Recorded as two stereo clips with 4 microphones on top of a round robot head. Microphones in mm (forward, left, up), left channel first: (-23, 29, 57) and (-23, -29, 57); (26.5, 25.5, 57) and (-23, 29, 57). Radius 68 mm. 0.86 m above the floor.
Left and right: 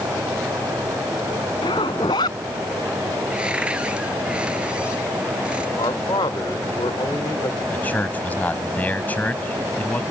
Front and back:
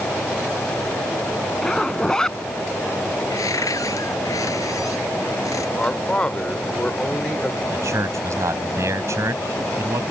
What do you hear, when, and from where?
1.6 s a zipper: 75° left
3.3 s a cupboard door: 15° right
5.8 s a man speaking: 70° left
7.7 s a man speaking: 155° left